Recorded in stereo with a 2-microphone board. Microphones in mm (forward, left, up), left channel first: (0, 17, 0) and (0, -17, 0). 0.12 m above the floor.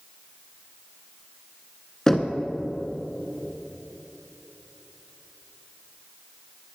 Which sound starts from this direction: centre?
Knocking, at 2.1 s.